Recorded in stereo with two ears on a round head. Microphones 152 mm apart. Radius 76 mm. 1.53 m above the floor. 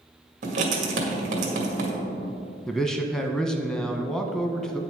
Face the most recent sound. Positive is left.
turn(degrees=5)  # may be behind; listen again after turning